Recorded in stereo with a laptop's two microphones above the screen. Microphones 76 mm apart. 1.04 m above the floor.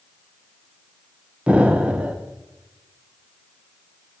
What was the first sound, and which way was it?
An explosion, 15° right (ahead or behind).